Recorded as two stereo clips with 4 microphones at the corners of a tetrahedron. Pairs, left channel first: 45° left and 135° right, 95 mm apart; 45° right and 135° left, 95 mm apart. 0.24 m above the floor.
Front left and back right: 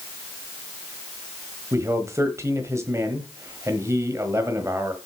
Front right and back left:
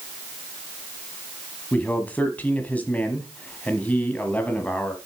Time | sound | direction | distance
1.7 | a man speaking | 105° right | 1.2 m